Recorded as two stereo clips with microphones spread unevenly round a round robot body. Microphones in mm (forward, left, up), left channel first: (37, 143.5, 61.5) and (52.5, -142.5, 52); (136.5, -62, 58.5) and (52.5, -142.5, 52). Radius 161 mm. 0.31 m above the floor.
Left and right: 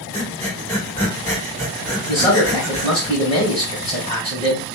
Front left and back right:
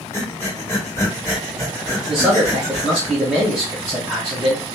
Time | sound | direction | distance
0.1 | breathing | 15° left | 1.5 m
2.1 | a man speaking | 150° left | 1.6 m